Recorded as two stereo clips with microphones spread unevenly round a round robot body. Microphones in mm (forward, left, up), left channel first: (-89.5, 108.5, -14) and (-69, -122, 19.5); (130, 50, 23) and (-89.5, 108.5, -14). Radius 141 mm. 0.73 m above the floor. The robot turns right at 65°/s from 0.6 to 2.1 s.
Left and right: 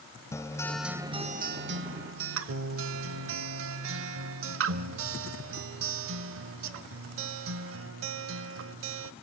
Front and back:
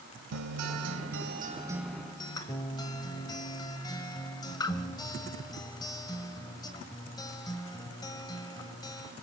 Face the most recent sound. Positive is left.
turn(degrees=-85)